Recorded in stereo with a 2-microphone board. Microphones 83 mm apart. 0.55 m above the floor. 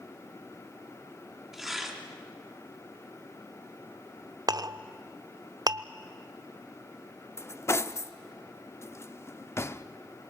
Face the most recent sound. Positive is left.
turn(degrees=35)  # may be behind; listen again after turning